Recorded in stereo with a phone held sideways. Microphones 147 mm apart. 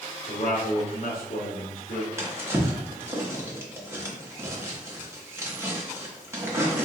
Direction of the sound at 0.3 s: 75° left (ahead or behind).